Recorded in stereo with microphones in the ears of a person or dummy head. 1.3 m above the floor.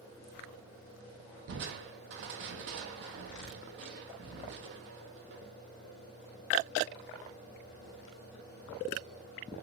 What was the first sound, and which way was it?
Crushing, 60° right (ahead or behind).